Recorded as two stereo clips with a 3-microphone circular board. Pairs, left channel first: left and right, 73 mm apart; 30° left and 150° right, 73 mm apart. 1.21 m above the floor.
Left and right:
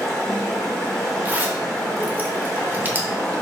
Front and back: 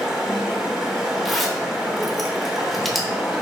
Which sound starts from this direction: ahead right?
A zipper, at 1.2 s.